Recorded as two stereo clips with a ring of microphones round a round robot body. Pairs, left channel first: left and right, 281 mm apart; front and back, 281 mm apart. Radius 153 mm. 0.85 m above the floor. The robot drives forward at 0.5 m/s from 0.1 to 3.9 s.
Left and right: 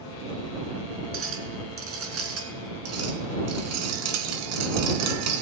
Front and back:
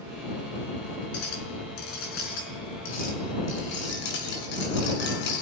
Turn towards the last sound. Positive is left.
turn(degrees=-60)